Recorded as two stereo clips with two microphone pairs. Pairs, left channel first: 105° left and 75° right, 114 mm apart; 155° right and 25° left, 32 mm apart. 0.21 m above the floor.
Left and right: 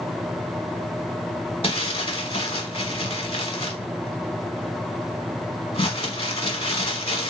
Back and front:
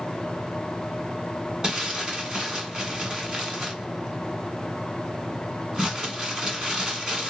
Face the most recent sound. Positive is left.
turn(degrees=90)